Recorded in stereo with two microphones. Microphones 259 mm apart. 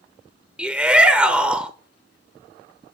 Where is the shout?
5° right (ahead or behind), 0.9 m.